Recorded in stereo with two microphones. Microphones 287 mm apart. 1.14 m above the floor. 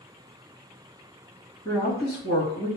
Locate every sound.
1.6 s a woman speaking: 15° left (ahead or behind), 1.9 m